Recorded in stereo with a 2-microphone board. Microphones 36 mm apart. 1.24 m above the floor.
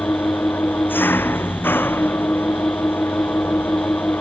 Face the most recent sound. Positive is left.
turn(degrees=75)  # may be behind; listen again after turning